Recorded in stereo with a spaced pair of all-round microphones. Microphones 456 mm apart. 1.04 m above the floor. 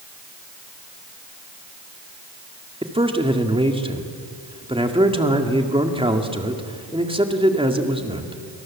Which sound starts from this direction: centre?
A man speaking, at 2.8 s.